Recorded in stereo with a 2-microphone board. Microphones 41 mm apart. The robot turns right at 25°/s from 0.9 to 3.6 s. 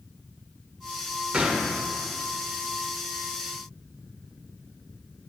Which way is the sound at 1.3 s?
30° right (ahead or behind).